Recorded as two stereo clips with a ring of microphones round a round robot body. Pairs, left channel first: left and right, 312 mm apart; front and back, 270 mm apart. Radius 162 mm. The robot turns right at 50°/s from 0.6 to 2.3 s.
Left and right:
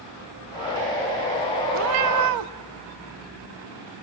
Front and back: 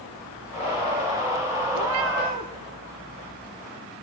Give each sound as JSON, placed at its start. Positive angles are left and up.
{"t": 1.7, "sound": "a cat meowing", "azimuth_deg": -145, "distance_m": 0.6}